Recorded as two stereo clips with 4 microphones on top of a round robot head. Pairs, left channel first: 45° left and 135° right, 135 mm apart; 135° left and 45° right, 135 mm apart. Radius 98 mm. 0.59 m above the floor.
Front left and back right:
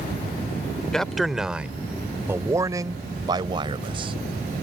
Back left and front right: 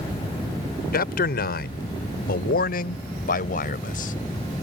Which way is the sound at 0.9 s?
130° left.